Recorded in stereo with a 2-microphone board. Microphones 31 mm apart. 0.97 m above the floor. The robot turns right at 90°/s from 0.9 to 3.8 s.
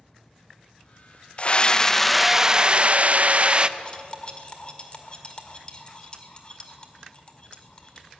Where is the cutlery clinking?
30° left (ahead or behind), 2.0 m.